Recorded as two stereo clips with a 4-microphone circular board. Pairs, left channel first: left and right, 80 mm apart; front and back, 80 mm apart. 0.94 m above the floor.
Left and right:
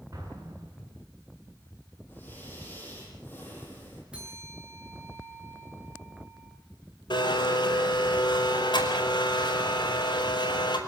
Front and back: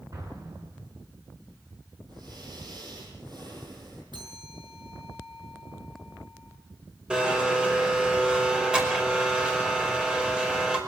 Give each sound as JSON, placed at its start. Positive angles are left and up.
{"t": 0.1, "sound": "an explosion", "azimuth_deg": -140, "distance_m": 9.0}
{"t": 2.1, "sound": "breathing", "azimuth_deg": 155, "distance_m": 9.5}
{"t": 4.1, "sound": "a bell", "azimuth_deg": -170, "distance_m": 8.0}
{"t": 7.1, "sound": "a blender", "azimuth_deg": 100, "distance_m": 5.0}